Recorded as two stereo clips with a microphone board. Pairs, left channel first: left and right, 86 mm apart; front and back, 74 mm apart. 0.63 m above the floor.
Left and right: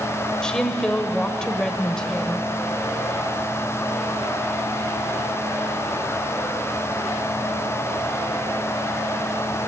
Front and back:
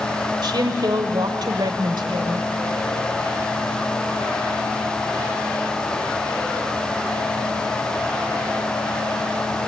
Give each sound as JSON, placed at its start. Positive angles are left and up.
{"t": 0.4, "sound": "a woman speaking", "azimuth_deg": 170, "distance_m": 2.0}